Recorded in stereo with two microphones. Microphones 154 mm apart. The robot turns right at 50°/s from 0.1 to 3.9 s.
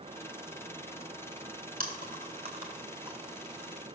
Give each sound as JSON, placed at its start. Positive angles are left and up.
{"t": 1.8, "sound": "chewing", "side_deg": -70, "distance_m": 3.0}